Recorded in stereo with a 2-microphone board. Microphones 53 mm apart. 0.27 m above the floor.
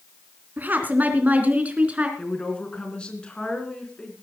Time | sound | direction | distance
0.6 | a woman speaking | 35° right (ahead or behind) | 3 m
2.2 | a woman speaking | 20° left (ahead or behind) | 3.5 m